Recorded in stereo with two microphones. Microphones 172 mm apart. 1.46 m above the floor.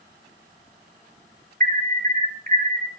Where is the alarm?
45° right (ahead or behind), 1.0 m.